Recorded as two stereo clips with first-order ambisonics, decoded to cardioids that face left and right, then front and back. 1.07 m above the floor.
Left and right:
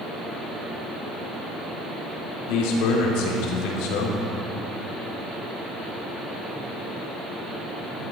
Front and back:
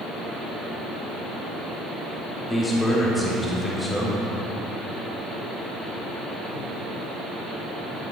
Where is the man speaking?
85° left, 3 m.